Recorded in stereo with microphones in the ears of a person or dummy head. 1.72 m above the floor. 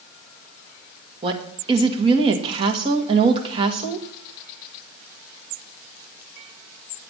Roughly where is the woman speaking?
Right.